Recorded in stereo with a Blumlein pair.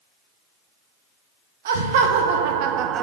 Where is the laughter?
55° right, 1.2 m; by 3.0 s 30° right, 0.6 m.